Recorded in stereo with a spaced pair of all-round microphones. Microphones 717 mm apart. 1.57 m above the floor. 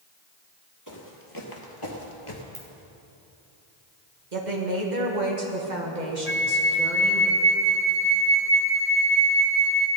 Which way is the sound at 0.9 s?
25° left (ahead or behind).